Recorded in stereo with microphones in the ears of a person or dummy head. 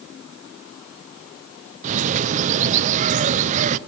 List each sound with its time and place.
1.8 s a bird: 35° right (ahead or behind), 0.7 m